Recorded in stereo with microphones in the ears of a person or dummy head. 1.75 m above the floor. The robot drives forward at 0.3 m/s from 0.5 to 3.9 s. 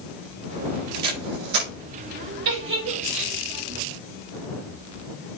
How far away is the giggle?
About 4 m.